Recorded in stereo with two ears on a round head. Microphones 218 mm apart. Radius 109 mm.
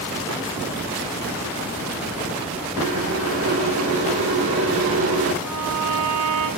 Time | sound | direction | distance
2.8 | boiling | 60° right (ahead or behind) | 1.6 m
5.4 | a violin | 80° right | 4.5 m